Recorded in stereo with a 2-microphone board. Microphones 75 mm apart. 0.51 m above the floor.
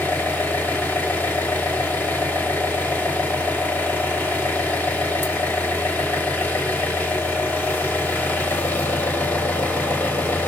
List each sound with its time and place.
0.0 s an engine running: 25° left (ahead or behind), 2.5 m